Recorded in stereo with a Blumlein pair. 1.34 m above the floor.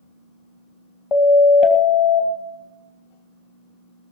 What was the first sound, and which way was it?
A siren, 30° left.